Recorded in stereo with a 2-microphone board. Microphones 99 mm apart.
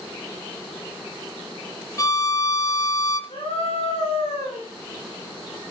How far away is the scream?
About 5.5 m.